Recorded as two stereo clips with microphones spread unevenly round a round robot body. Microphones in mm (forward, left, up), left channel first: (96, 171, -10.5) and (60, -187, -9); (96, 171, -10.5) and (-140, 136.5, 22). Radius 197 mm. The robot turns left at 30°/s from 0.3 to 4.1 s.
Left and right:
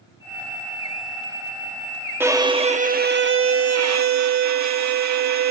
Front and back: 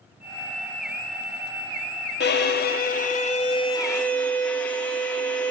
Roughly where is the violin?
Ahead.